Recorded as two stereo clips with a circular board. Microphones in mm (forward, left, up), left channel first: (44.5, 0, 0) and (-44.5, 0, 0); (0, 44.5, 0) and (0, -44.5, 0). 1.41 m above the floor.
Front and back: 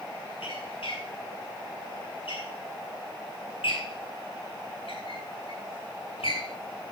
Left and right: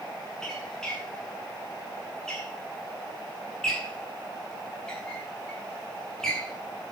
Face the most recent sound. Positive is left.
turn(degrees=5)